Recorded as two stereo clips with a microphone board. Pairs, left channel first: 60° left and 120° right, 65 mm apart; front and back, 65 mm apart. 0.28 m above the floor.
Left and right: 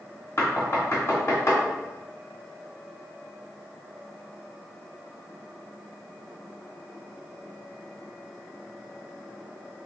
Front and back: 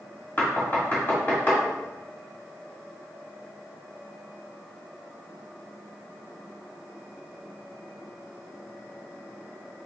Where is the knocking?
50° left, 1.7 m.